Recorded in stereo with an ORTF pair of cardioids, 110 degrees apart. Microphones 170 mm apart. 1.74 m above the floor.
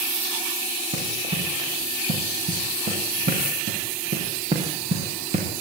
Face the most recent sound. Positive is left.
turn(degrees=-35)